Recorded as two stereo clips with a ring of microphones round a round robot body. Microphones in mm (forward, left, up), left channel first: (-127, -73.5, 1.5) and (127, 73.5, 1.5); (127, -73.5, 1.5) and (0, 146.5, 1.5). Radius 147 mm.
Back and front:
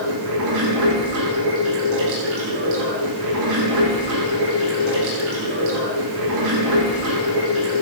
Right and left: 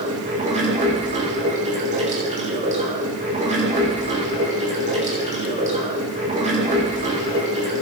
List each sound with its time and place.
0.0 s running water: 60° left, 7.5 m